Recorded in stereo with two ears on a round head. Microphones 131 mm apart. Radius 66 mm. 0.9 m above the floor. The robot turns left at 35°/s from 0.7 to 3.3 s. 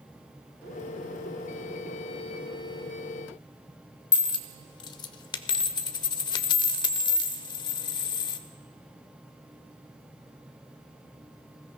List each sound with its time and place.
4.1 s a dropped coin: 25° left (ahead or behind), 0.6 m